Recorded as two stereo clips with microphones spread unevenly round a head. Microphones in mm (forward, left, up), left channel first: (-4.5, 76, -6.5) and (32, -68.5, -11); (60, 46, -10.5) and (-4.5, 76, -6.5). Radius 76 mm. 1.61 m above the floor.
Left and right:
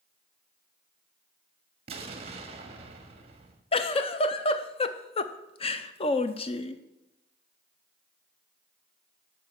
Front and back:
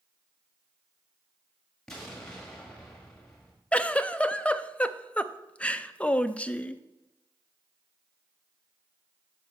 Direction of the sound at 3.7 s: 50° left.